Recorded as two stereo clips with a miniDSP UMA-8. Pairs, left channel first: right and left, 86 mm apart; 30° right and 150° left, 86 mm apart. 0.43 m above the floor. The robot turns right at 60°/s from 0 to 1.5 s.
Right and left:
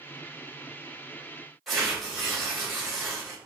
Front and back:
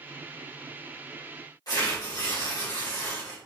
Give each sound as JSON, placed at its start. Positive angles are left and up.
{"t": 1.7, "sound": "tearing paper", "azimuth_deg": 0, "distance_m": 1.9}